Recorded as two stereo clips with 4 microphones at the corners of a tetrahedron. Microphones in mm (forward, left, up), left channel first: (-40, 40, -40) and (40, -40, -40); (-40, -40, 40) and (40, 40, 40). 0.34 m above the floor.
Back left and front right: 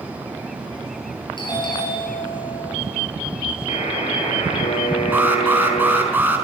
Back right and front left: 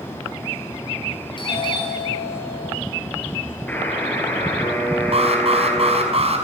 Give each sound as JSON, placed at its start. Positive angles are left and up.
{"t": 1.4, "sound": "a doorbell", "azimuth_deg": 180, "distance_m": 8.5}
{"t": 3.7, "sound": "a buzzer", "azimuth_deg": 150, "distance_m": 6.0}
{"t": 5.1, "sound": "an alarm", "azimuth_deg": 25, "distance_m": 5.5}